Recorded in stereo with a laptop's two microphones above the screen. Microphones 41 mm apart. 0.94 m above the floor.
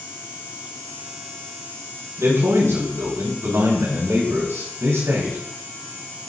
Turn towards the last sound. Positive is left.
turn(degrees=-80)